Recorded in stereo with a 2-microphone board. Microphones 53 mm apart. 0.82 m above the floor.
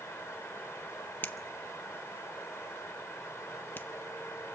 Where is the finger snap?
40° left (ahead or behind), 0.8 m.